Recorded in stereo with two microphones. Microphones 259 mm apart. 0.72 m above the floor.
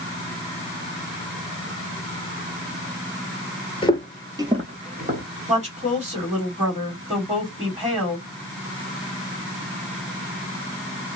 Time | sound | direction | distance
3.8 | footsteps | 20° left (ahead or behind) | 0.7 m
5.5 | a woman speaking | 25° right (ahead or behind) | 2 m